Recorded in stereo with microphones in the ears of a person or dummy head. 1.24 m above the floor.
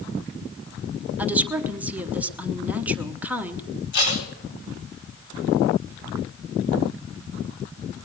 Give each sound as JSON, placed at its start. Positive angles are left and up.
{"t": 1.2, "sound": "a woman speaking", "side_deg": -10, "distance_m": 0.9}
{"t": 3.9, "sound": "tape being pulled", "side_deg": 75, "distance_m": 5.0}